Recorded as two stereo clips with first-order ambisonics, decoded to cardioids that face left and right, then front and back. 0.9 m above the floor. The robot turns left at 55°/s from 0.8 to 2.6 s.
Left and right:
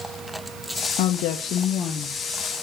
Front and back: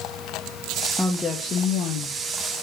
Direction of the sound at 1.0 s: 85° left.